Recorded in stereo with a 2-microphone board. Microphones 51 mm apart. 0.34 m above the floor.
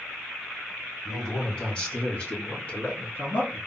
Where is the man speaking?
20° left (ahead or behind), 1.5 m; by 3.6 s 35° left (ahead or behind), 2.5 m.